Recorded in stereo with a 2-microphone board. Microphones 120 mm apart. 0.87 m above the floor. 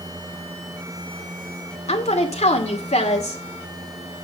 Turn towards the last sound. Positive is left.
turn(degrees=70)  # may be behind; listen again after turning